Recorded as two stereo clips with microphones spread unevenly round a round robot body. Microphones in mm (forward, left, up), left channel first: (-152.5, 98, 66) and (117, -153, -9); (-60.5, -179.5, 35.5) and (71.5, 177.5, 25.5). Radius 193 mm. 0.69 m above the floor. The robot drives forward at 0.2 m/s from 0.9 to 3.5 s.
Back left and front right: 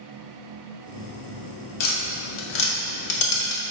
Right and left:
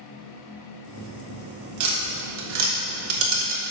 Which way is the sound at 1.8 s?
115° left.